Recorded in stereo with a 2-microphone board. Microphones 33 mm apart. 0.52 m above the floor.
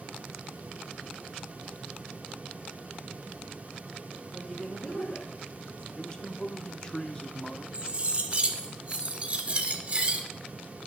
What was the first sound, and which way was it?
A woman speaking, 35° left (ahead or behind).